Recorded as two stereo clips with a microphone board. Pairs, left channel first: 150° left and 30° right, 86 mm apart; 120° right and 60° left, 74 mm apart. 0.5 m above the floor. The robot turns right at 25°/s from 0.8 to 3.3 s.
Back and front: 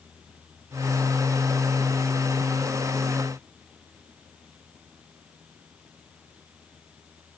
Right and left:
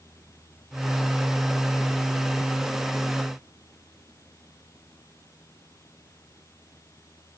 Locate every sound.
Only background noise.